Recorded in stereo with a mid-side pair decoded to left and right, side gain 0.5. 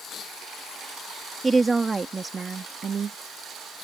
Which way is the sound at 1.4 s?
20° right.